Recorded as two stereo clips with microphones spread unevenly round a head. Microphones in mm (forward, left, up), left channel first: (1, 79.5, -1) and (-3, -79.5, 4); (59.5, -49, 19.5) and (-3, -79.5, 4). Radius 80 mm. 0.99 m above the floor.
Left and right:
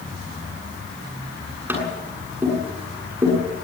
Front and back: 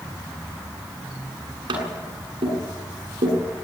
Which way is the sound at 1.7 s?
170° right.